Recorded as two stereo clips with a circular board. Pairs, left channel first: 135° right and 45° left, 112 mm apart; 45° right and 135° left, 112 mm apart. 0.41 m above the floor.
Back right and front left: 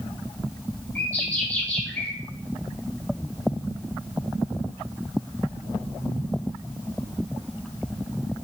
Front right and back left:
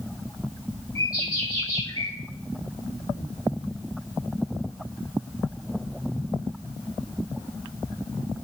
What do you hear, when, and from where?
0.9 s a bird: 75° right, 1.6 m